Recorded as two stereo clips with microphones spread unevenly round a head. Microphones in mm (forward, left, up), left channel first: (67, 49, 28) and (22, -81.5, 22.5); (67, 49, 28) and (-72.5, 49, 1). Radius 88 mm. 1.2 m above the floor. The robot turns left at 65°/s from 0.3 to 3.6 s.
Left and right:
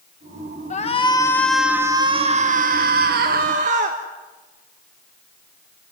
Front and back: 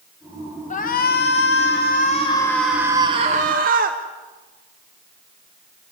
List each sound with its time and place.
0.7 s a shout: 35° left, 1.3 m; by 4.0 s 155° right, 1.3 m